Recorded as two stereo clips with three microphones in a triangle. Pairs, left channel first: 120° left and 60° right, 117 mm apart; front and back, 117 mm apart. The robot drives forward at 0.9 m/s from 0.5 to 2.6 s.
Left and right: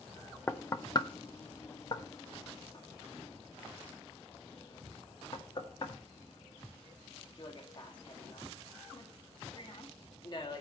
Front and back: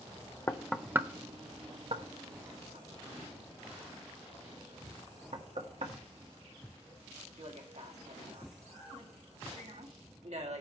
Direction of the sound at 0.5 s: 55° left.